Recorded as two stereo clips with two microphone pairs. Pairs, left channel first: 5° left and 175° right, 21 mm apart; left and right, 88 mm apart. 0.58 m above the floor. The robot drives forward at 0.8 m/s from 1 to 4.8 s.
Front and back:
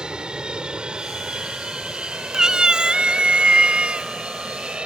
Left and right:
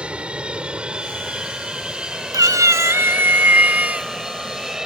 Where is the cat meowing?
125° right; by 4.1 s 160° right.